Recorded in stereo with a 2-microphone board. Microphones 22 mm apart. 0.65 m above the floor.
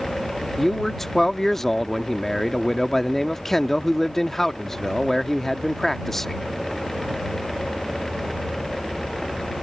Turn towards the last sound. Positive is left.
turn(degrees=15)  # may be behind; listen again after turning